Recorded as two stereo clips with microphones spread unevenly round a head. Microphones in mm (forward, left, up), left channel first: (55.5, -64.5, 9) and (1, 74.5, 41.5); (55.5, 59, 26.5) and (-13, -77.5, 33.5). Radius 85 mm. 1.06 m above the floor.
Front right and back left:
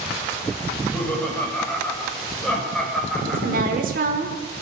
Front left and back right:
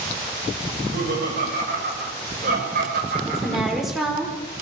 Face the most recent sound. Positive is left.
turn(degrees=155)